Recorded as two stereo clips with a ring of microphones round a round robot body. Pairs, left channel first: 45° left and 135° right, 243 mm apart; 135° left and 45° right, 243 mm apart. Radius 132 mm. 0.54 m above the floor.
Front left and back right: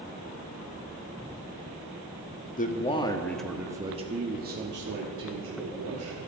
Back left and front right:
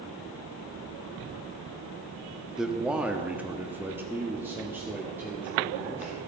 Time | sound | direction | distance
2.6 | a man speaking | 40° left | 1.3 m